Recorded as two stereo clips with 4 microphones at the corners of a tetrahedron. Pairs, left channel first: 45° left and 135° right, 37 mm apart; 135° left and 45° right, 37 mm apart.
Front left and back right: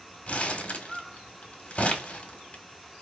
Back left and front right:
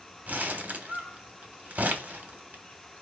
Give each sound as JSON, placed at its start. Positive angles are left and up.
{"t": 0.3, "sound": "crumpling", "azimuth_deg": -5, "distance_m": 1.2}